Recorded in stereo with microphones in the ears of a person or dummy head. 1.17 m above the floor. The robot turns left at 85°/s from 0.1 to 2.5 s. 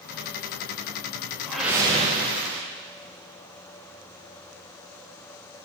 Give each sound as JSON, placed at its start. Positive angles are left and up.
{"t": 1.5, "sound": "a whoosh", "azimuth_deg": 10, "distance_m": 0.5}